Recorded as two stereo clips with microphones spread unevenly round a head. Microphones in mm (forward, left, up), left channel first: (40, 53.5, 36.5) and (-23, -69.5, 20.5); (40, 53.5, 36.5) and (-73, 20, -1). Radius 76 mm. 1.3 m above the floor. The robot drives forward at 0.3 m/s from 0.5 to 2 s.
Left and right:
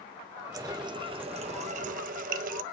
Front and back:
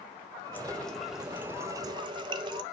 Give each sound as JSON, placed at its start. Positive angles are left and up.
{"t": 0.5, "sound": "a running tap", "azimuth_deg": -50, "distance_m": 0.7}